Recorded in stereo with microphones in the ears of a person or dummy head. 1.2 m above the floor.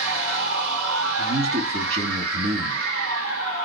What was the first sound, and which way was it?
A machine running, 70° right (ahead or behind).